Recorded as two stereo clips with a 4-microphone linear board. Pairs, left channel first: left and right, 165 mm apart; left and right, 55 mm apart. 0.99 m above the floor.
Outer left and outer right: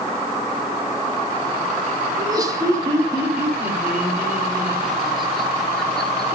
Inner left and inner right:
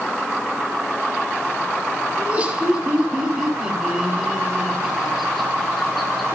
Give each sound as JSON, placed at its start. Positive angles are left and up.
{"t": 2.2, "sound": "laughter", "side_deg": -25, "distance_m": 3.5}